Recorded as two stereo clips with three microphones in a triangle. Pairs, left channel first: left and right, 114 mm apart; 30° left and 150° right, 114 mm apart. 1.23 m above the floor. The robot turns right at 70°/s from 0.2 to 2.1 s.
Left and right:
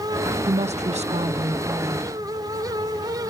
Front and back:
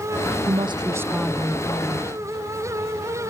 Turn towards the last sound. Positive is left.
turn(degrees=-5)